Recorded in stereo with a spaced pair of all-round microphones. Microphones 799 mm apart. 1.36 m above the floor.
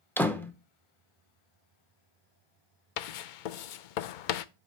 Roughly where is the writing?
Left.